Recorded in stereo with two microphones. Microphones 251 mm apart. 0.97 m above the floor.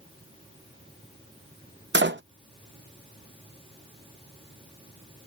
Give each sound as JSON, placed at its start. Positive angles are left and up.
{"t": 1.9, "sound": "a door slam", "side_deg": -45}